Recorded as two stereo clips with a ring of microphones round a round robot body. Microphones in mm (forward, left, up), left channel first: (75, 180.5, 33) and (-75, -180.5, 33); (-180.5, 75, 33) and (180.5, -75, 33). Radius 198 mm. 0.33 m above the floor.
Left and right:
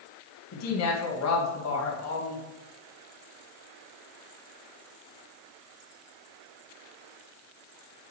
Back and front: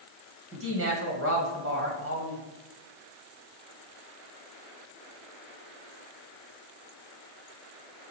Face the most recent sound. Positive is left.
turn(degrees=25)